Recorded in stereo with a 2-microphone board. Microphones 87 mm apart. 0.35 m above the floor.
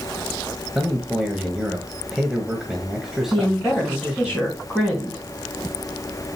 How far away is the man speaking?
About 1.4 m.